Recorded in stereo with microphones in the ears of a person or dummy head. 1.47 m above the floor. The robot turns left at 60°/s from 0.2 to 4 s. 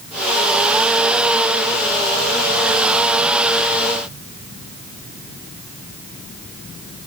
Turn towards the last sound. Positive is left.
No sound to turn to.